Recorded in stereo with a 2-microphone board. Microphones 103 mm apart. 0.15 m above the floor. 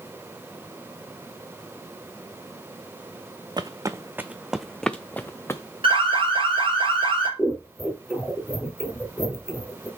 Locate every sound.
3.6 s footsteps: 40° right (ahead or behind), 0.8 m; by 5.6 s 25° left (ahead or behind), 1.1 m
5.8 s an alarm: 60° right (ahead or behind), 5.5 m
7.4 s scissors: 5° right (ahead or behind), 3 m